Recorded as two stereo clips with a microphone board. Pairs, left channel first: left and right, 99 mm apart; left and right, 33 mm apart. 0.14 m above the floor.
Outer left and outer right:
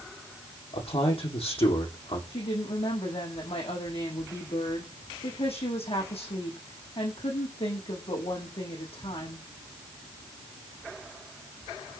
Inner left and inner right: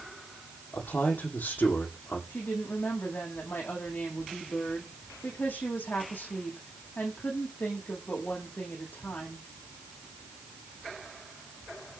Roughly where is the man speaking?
Left.